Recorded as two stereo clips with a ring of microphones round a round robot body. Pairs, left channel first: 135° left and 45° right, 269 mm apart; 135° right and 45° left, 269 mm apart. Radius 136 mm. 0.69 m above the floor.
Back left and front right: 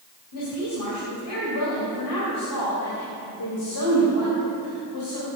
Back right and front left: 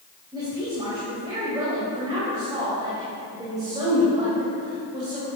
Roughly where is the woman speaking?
Behind left.